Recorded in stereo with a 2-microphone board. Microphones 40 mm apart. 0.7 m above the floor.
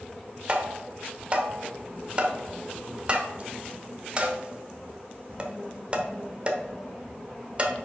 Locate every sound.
0.5 s tapping: 25° right (ahead or behind), 1.0 m